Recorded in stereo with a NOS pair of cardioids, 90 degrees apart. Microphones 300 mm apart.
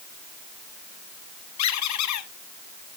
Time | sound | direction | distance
1.6 | a squeak | 70° left | 1.1 m